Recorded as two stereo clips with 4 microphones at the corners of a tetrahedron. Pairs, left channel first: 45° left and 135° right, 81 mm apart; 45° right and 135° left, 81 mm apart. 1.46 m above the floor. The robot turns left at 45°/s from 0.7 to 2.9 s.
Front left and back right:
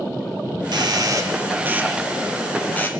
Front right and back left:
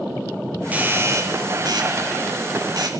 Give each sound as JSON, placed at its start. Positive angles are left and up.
{"t": 0.7, "sound": "a doorbell", "azimuth_deg": -155, "distance_m": 2.5}